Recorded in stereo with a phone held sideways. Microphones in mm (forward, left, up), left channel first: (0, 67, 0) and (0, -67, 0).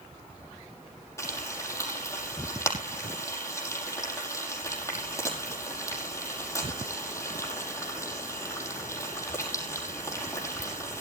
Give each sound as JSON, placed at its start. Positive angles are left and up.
{"t": 1.2, "sound": "frying", "side_deg": 20, "distance_m": 5.5}